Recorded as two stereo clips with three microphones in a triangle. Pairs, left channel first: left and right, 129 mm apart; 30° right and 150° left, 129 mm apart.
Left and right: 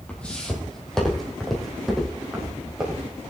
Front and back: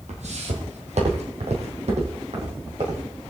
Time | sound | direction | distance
0.1 | footsteps | 170° left | 2.5 m